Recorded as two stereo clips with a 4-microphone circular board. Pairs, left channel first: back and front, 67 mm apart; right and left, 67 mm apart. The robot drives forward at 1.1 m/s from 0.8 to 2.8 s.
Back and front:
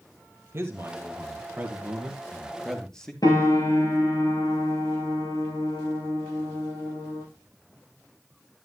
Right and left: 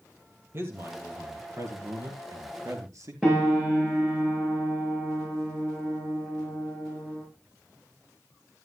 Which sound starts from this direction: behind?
A piano, at 3.2 s.